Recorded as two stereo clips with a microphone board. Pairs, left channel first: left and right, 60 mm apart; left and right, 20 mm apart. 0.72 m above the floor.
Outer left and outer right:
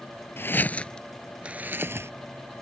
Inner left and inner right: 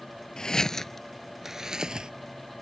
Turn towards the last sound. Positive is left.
turn(degrees=-50)  # may be behind; listen again after turning